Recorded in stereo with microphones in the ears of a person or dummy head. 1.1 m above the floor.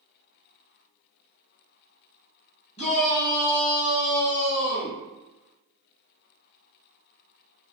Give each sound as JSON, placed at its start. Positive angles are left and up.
{"t": 2.8, "sound": "a shout", "side_deg": 35, "distance_m": 1.1}